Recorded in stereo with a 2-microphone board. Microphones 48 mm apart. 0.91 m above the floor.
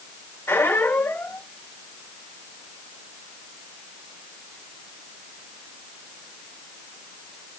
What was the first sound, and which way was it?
A squeak, 65° left (ahead or behind).